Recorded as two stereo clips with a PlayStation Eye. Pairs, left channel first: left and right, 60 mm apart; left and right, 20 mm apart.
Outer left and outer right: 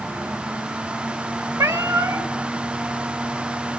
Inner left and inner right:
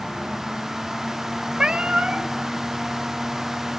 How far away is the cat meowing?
About 0.9 m.